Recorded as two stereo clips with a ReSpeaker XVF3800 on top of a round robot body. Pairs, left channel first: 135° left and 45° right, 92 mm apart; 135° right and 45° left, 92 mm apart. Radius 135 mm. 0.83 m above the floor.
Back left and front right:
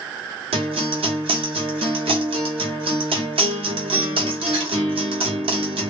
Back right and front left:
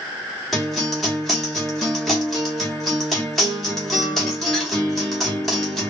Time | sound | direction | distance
0.5 | a guitar | 45° right | 0.9 m